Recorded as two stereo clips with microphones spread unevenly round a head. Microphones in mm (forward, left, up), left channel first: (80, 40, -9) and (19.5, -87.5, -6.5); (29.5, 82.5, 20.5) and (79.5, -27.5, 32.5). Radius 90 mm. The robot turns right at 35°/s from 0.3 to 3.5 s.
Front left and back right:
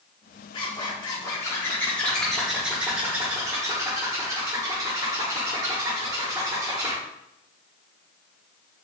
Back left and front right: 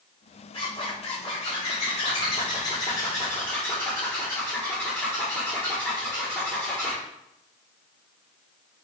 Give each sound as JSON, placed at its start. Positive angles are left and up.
{"t": 0.5, "sound": "a zipper", "azimuth_deg": 90, "distance_m": 1.0}